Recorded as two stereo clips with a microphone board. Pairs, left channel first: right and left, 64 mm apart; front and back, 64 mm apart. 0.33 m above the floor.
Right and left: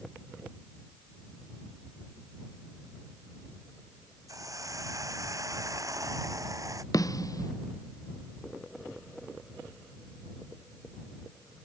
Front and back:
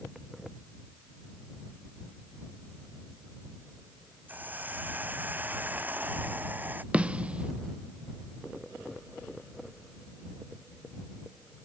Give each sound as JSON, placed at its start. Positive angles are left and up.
{"t": 4.3, "sound": "a hiss", "azimuth_deg": 120}
{"t": 6.9, "sound": "a snare drum", "azimuth_deg": -110}